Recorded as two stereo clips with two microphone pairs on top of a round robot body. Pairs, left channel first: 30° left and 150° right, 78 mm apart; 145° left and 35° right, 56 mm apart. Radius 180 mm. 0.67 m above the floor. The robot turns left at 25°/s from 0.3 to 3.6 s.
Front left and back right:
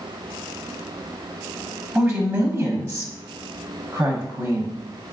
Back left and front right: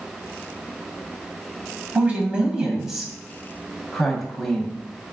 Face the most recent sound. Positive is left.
turn(degrees=-125)